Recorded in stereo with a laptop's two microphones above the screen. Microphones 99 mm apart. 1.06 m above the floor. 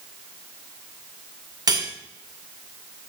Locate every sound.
1.7 s cutlery clinking: 45° right (ahead or behind), 2 m